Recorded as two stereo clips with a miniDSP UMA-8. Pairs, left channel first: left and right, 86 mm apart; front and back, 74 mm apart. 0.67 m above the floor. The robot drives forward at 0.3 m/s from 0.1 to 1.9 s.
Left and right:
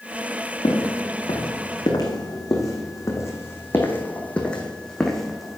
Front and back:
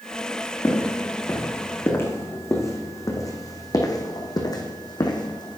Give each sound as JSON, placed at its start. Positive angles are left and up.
{"t": 0.6, "sound": "footsteps", "azimuth_deg": 60, "distance_m": 3.0}